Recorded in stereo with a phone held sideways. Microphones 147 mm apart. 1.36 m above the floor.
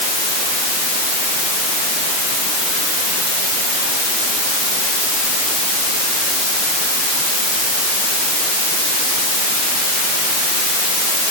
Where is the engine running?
No engine running in this recording.